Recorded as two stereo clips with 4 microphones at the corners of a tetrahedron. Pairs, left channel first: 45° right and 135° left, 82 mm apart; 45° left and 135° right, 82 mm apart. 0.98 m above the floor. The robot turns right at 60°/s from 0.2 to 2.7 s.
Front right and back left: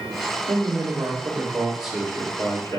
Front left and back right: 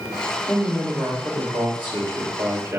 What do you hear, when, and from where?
0.5 s a man speaking: 135° left, 2.5 m; by 2.8 s 90° right, 2.5 m